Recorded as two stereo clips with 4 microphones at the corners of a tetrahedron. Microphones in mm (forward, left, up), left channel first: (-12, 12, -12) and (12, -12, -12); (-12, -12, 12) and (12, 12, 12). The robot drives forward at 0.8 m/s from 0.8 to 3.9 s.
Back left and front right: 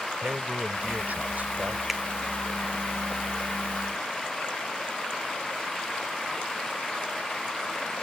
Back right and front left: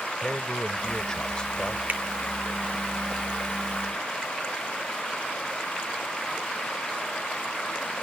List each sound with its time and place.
0.2 s a man speaking: 65° right; by 1.8 s 80° right
1.9 s a finger snap: 30° left; by 2.0 s 35° left